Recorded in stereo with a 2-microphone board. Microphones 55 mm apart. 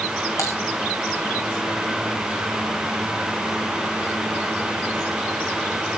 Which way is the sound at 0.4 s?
65° left (ahead or behind).